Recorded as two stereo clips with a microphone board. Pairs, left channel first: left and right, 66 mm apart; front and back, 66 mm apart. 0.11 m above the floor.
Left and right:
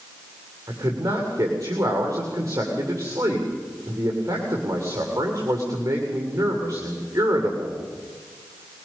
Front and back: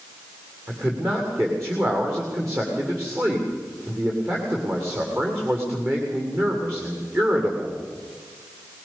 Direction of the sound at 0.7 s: 135° right.